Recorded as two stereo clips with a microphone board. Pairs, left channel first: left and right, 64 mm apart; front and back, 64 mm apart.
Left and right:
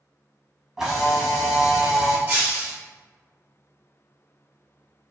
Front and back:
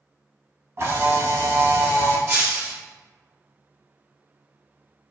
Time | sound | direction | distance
0.8 | a camera shutter | 170° right | 0.9 m
2.3 | breaking glass | 140° right | 1.5 m